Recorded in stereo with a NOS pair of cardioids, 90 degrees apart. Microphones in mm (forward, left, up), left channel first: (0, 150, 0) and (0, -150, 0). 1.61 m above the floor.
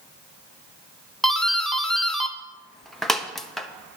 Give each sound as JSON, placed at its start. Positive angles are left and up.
{"t": 1.2, "sound": "a doorbell", "azimuth_deg": 0, "distance_m": 1.0}